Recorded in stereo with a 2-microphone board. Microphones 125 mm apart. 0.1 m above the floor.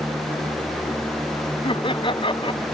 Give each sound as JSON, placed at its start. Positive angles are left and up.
{"t": 1.6, "sound": "laughter", "side_deg": 40}